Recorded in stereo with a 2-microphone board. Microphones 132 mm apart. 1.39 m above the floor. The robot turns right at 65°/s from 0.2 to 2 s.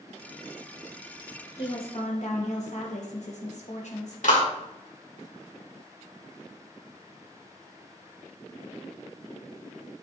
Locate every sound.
1.6 s a woman speaking: 35° left (ahead or behind), 1.4 m; by 4.1 s 60° left (ahead or behind), 1.4 m
4.2 s a clap: 75° left (ahead or behind), 3 m